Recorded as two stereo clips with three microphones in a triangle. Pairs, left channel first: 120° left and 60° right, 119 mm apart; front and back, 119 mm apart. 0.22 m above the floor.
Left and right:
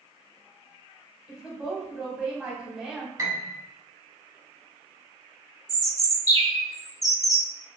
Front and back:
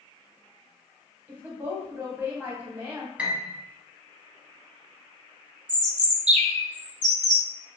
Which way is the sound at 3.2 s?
105° right.